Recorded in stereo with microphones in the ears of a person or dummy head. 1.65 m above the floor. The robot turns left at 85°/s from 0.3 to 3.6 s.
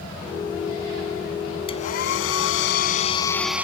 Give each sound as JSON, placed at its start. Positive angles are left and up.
{"t": 1.7, "sound": "a hair dryer", "azimuth_deg": 155}